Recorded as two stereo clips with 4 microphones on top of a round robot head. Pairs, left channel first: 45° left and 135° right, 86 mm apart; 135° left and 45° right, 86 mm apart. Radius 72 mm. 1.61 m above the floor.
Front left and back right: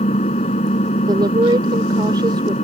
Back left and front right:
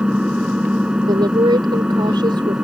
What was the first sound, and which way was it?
An engine running, 35° left.